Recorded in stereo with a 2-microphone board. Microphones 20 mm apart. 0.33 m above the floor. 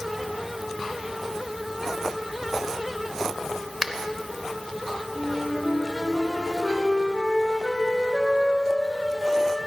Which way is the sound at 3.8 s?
25° right (ahead or behind).